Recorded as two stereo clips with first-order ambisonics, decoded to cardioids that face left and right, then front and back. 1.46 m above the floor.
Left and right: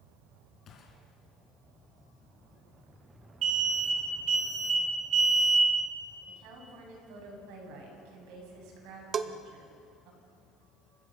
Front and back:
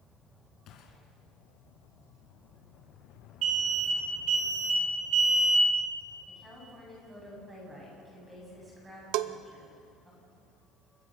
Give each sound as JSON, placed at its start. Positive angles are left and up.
{"t": 0.7, "sound": "a gunshot", "azimuth_deg": 40, "distance_m": 3.0}
{"t": 3.4, "sound": "an alarm", "azimuth_deg": -140, "distance_m": 5.0}
{"t": 6.3, "sound": "a woman speaking", "azimuth_deg": -105, "distance_m": 8.5}
{"t": 9.1, "sound": "a bell", "azimuth_deg": -155, "distance_m": 0.7}